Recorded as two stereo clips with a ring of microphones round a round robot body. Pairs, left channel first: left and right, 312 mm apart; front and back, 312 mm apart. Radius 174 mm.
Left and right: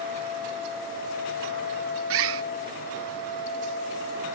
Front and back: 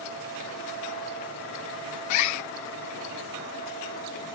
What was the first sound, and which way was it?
A bird, 40° right.